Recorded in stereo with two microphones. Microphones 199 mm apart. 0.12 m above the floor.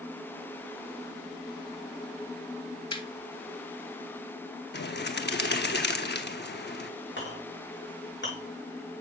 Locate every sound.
2.9 s laughter: 25° left (ahead or behind), 1.7 m
4.7 s a bird: 60° left (ahead or behind), 0.8 m
7.2 s a clink: 65° left (ahead or behind), 6 m